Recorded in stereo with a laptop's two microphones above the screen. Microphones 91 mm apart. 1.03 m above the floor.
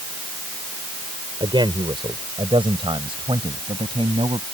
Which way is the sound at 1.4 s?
60° right (ahead or behind).